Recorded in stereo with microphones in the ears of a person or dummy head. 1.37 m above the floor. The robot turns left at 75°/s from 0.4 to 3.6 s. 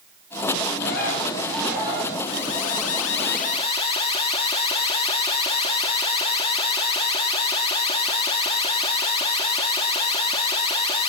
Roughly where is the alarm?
Behind left.